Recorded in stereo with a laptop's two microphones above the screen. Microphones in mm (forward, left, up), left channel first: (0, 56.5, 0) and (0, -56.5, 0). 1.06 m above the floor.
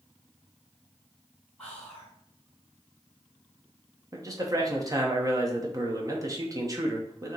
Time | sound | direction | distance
1.6 | whispering | 10° left (ahead or behind) | 2.5 m
4.1 | a man speaking | 30° right (ahead or behind) | 0.9 m